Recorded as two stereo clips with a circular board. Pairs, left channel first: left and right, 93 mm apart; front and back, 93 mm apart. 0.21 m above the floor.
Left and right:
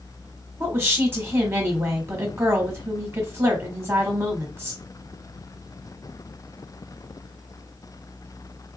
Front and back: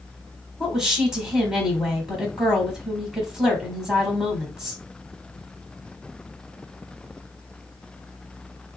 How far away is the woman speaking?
About 1.1 m.